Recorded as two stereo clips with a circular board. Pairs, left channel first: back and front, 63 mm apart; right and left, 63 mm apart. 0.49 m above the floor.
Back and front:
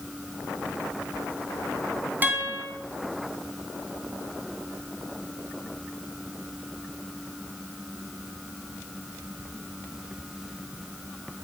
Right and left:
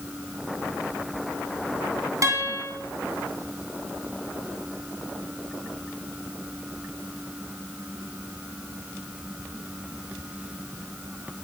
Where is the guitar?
60° left, 3 m.